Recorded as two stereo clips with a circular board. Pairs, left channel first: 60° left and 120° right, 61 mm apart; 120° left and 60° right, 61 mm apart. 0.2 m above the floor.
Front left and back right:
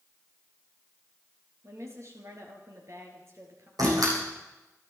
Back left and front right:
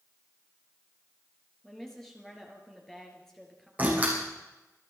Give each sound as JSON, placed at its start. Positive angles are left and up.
{"t": 1.6, "sound": "a woman speaking", "azimuth_deg": -155, "distance_m": 4.0}
{"t": 3.8, "sound": "a door slam", "azimuth_deg": -125, "distance_m": 7.5}